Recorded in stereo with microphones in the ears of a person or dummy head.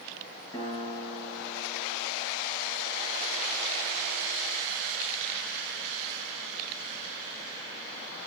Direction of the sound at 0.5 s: 30° left (ahead or behind).